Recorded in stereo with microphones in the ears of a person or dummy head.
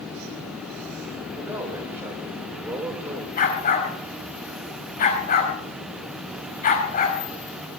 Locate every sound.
1.4 s a man speaking: 10° right (ahead or behind), 7.5 m
3.4 s a dog barking: 40° left (ahead or behind), 4.5 m